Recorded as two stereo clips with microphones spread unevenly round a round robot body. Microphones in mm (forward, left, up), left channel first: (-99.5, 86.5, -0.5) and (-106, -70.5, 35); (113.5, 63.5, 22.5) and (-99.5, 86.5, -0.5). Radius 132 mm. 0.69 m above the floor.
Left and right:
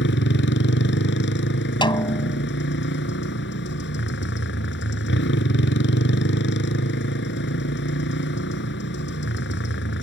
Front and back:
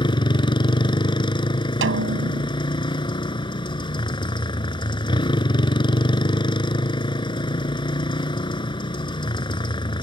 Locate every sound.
0.0 s a motorcycle: 60° left
1.8 s a snare drum: 150° left